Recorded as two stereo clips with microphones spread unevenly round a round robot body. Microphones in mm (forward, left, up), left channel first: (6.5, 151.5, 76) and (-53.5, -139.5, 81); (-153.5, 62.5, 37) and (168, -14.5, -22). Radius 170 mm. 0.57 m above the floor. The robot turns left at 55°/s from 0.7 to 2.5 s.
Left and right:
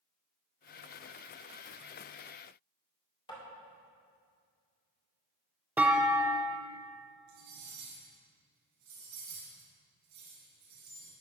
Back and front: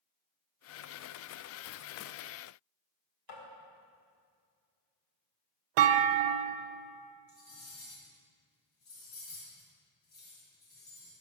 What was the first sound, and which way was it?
Tapping, 150° left.